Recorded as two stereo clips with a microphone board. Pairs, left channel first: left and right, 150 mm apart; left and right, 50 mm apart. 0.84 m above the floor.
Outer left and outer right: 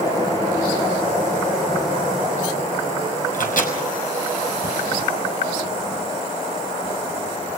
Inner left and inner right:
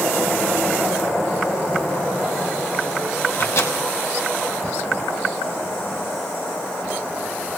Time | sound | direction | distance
3.3 | a microwave | 65° left (ahead or behind) | 5.5 m